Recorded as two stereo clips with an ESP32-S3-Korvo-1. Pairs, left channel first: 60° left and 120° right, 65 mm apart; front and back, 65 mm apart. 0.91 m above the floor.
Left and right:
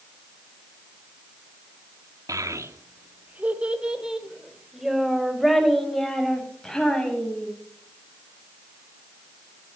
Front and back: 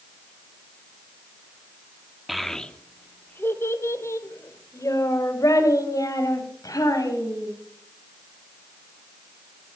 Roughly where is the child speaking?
Right.